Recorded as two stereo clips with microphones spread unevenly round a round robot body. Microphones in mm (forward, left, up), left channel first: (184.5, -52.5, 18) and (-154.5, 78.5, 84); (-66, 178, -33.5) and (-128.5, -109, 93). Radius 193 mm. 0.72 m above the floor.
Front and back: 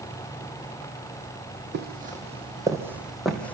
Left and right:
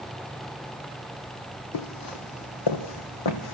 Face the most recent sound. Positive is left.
turn(degrees=70)